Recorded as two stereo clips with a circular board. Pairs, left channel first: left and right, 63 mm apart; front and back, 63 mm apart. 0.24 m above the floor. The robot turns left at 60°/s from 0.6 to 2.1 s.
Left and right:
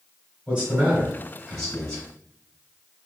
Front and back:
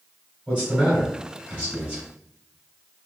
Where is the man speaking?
135° right, 1.6 m; by 2.0 s 140° left, 1.6 m.